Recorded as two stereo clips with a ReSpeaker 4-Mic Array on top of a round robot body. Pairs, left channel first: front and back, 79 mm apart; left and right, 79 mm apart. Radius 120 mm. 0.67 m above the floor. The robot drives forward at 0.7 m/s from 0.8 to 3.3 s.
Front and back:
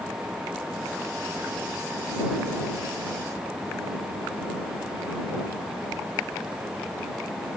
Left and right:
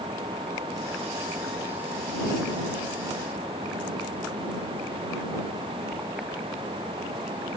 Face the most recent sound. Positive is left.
No sound to turn to.